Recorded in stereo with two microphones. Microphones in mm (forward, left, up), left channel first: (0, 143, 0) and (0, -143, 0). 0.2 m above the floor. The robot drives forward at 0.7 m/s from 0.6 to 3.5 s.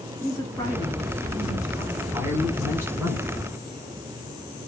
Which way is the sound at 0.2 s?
10° left (ahead or behind).